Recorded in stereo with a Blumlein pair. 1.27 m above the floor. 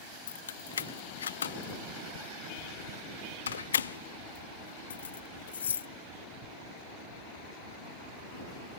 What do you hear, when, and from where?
0.3 s keys jangling: 65° left